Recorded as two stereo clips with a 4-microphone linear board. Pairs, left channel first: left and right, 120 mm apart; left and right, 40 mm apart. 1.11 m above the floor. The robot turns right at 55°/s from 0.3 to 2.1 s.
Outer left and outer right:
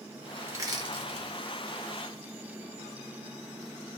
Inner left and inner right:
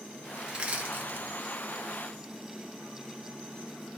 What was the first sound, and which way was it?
Crushing, 20° right (ahead or behind).